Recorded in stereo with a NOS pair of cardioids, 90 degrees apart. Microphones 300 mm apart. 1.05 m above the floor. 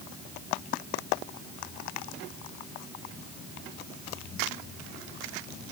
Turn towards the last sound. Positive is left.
No sound to turn to.